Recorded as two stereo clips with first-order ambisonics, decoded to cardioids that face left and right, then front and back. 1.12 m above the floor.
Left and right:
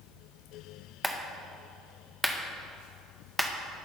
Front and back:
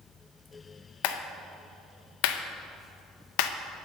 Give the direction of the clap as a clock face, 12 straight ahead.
12 o'clock.